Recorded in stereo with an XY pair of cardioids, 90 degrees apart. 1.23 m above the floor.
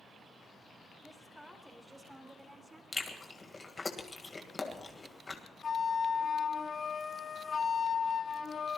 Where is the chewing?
30° left, 2.5 m.